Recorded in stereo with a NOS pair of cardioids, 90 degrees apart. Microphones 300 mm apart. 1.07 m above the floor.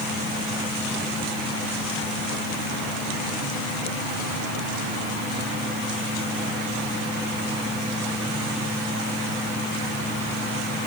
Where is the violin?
No violin in this recording.